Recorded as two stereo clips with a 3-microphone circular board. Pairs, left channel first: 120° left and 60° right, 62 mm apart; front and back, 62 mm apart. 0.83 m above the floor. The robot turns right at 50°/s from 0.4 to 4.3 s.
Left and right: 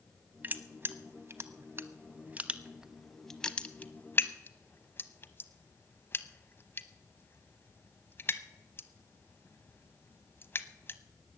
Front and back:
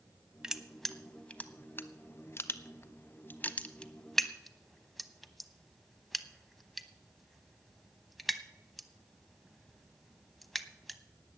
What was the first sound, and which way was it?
Crushing, 105° right.